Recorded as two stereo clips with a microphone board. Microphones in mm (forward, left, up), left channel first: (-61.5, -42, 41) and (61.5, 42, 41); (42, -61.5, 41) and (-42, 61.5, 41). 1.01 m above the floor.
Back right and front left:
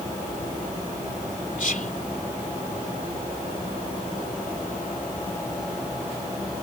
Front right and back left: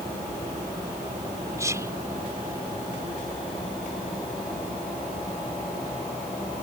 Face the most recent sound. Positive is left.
turn(degrees=-165)